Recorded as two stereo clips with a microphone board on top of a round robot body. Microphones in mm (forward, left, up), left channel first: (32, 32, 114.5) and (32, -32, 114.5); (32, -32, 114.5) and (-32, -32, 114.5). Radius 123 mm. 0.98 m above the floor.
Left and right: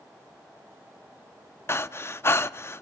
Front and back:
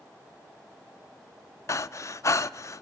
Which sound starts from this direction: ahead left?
Breathing, at 1.7 s.